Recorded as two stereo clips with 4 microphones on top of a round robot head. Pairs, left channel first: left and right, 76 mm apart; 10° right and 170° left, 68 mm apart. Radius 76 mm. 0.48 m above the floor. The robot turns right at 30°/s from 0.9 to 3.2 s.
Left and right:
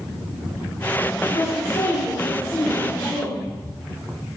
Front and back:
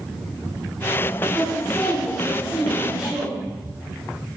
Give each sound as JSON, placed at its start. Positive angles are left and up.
{"t": 1.2, "sound": "a woman speaking", "azimuth_deg": 70, "distance_m": 3.5}